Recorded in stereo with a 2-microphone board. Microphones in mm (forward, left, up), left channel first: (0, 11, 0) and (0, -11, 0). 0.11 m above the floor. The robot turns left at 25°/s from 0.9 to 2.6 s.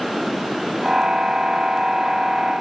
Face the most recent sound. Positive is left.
No sound to turn to.